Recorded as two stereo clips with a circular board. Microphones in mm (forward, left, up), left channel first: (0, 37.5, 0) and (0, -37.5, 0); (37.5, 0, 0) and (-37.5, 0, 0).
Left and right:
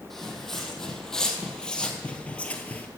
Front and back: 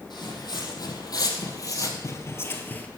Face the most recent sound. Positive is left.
turn(degrees=45)